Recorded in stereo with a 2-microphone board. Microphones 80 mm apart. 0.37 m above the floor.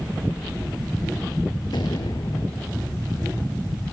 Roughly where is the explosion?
Left.